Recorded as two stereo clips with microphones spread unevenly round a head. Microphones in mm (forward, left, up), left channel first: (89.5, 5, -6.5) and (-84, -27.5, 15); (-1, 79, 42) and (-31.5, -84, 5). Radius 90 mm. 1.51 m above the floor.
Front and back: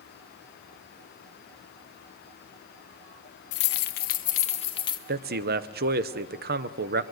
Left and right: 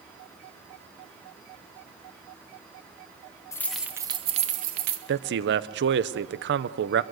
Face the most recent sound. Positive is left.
turn(degrees=-130)